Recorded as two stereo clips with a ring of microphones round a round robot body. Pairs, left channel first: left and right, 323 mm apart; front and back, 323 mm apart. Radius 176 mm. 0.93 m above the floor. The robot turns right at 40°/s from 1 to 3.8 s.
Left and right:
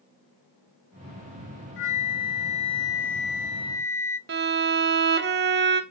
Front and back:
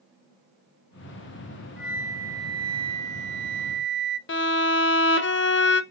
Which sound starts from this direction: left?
A flute, at 1.8 s.